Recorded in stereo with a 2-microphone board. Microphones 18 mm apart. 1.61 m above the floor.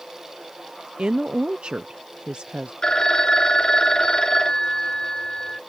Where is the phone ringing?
40° left (ahead or behind).